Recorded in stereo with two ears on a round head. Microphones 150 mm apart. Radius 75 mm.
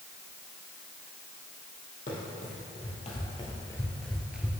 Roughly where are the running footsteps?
Left.